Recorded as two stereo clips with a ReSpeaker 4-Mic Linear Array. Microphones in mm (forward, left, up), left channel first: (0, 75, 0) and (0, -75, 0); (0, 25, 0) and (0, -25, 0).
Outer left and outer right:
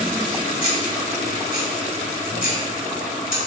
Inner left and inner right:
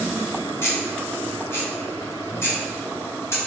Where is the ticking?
65° left (ahead or behind), 2 m.